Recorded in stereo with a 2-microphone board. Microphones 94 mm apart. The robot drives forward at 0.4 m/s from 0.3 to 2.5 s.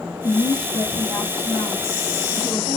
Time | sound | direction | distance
0.2 | a woman speaking | 50° left (ahead or behind) | 1.5 m